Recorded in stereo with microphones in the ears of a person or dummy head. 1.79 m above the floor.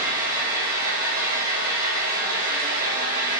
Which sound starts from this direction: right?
An engine running, at 0.0 s.